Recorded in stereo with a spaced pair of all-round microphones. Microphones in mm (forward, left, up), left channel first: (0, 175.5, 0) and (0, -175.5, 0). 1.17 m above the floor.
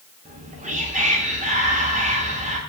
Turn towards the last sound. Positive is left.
turn(degrees=-20)  # may be behind; listen again after turning